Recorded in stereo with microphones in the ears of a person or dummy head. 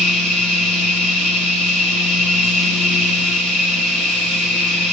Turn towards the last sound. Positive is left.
turn(degrees=5)  # may be behind; listen again after turning